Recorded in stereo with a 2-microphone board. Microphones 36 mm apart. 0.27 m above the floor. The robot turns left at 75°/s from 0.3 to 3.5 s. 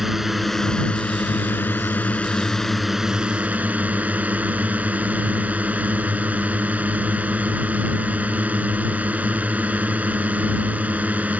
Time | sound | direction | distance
0.0 | a drone | 170° right | ?